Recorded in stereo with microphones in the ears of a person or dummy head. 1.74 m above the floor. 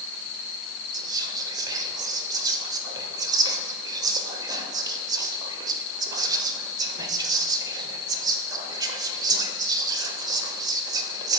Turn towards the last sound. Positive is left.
turn(degrees=-30)  # may be behind; listen again after turning